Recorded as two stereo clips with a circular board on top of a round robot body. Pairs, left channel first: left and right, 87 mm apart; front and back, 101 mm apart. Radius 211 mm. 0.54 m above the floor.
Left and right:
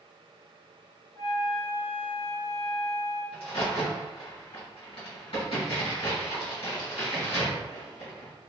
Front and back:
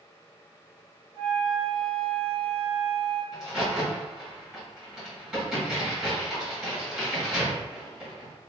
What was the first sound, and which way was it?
A flute, 140° left.